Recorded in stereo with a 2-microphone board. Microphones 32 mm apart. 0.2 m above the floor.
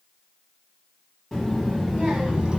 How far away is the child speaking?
About 1.2 m.